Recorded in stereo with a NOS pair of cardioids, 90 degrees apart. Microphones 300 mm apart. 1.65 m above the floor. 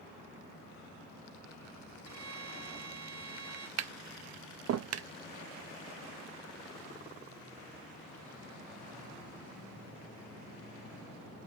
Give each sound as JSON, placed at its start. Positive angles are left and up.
{"t": 2.0, "sound": "a violin", "azimuth_deg": -60, "distance_m": 2.5}
{"t": 3.8, "sound": "tapping", "azimuth_deg": -55, "distance_m": 0.7}